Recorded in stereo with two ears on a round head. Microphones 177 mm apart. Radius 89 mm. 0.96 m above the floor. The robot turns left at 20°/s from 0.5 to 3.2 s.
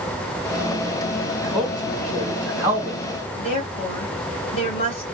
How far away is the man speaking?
About 1.1 m.